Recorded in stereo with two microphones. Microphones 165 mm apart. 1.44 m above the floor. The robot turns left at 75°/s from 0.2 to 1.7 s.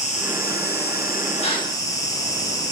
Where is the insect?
135° left, 1.0 m; by 2.7 s 20° left, 1.0 m.